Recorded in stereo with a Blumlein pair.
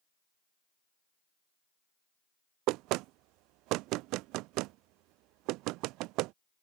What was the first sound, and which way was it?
Knocking, 40° right.